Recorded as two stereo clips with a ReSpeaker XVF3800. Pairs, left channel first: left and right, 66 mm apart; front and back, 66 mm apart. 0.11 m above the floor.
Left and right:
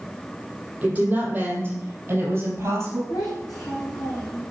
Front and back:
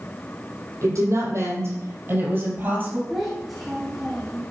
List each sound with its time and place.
0.8 s a woman speaking: 155° right, 3.5 m; by 3.0 s 120° right, 2.5 m
3.1 s a child speaking: 95° left, 2.5 m